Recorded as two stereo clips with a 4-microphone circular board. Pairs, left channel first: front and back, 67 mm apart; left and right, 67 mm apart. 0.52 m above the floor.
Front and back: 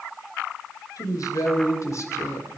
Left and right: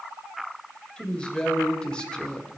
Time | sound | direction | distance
1.0 | a woman speaking | 15° left | 2.5 m